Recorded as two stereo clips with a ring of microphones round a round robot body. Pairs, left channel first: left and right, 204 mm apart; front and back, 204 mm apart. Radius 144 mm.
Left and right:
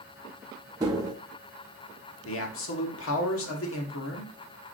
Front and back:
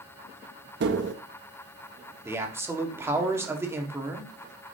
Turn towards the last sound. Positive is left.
turn(degrees=100)